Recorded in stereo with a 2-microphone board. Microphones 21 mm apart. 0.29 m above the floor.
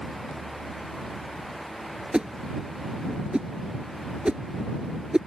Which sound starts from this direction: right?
A whoosh, at 2.1 s.